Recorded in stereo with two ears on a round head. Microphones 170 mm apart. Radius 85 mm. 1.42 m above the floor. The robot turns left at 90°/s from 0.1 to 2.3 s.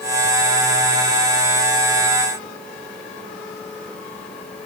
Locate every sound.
Only background noise.